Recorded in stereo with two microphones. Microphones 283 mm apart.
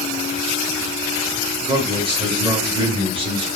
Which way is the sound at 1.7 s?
20° right (ahead or behind).